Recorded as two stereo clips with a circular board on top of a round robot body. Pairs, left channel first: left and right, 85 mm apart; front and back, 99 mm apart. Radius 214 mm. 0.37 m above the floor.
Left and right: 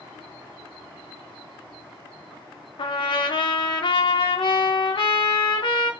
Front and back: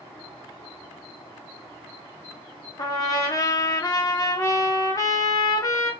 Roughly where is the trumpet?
Ahead left.